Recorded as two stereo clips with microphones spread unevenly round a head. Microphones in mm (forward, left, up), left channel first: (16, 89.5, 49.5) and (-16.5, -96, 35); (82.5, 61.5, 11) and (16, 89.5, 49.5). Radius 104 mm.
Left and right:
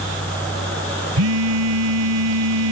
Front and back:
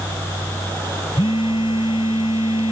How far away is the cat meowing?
No cat meowing in this recording.